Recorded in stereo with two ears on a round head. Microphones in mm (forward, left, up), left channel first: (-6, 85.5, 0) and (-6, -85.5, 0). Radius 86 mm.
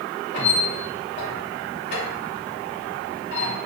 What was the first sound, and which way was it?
A squeak, 55° left (ahead or behind).